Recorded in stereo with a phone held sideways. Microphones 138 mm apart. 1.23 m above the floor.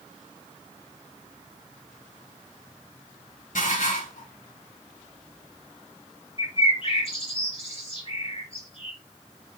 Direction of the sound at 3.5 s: 80° left.